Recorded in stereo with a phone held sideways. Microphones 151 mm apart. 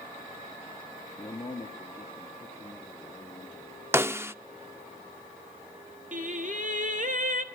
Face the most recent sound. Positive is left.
turn(degrees=-55)  # may be behind; listen again after turning